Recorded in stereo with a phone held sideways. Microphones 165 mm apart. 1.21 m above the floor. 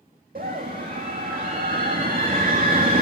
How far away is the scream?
About 2.5 m.